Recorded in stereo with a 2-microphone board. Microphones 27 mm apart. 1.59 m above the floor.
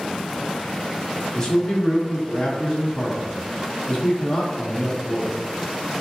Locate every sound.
1.4 s a man speaking: 25° left (ahead or behind), 1.3 m